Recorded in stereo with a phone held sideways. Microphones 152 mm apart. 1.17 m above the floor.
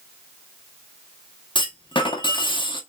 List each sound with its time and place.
1.6 s a clunk: 30° left (ahead or behind), 0.9 m